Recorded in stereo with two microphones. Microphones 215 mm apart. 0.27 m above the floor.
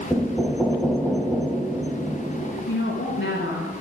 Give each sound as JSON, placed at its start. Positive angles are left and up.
{"t": 0.1, "sound": "knocking", "side_deg": 5, "distance_m": 1.3}
{"t": 2.7, "sound": "a woman speaking", "side_deg": 65, "distance_m": 3.0}